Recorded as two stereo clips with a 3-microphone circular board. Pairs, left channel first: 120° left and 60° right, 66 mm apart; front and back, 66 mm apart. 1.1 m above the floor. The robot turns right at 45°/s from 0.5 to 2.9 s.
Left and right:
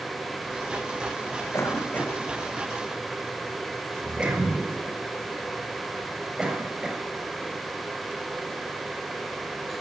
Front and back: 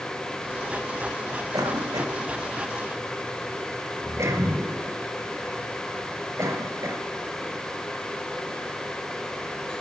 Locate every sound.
1.5 s a cough: 165° left, 7 m; by 7.0 s 135° right, 7 m